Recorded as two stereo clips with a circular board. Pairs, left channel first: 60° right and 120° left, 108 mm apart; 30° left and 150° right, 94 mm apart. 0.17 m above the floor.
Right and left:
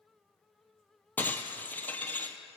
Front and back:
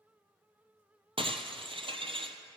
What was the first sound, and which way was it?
Breaking glass, 135° right.